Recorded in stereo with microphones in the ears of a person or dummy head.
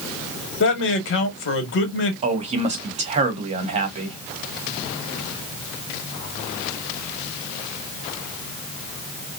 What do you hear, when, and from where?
0.6 s a man speaking: 60° left (ahead or behind), 1.1 m
2.2 s a man speaking: 35° right (ahead or behind), 0.8 m